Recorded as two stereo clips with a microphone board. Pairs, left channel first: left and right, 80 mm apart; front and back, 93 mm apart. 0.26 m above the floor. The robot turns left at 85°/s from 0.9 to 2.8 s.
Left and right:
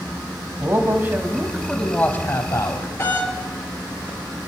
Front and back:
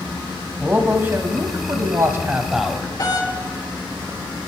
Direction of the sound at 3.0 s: 35° left.